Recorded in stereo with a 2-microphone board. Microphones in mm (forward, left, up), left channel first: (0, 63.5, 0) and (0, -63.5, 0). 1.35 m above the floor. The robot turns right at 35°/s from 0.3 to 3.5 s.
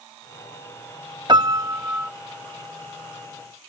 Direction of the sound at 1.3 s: 35° right (ahead or behind).